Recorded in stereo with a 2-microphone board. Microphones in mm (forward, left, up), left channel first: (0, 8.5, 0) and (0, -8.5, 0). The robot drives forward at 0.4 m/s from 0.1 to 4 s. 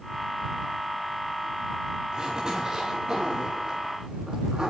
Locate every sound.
2.1 s a zipper: 40° right (ahead or behind), 9 m; by 4.7 s 45° right (ahead or behind), 8.5 m